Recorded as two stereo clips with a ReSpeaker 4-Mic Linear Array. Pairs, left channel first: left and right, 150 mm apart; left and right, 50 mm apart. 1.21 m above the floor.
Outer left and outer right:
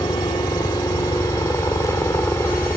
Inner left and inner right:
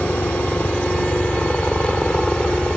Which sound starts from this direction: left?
A helicopter, at 0.0 s.